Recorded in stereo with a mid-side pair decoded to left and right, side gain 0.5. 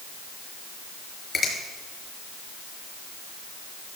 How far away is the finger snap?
About 4.5 m.